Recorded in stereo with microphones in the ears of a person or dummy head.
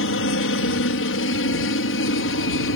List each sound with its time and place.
0.0 s a helicopter: 60° left (ahead or behind)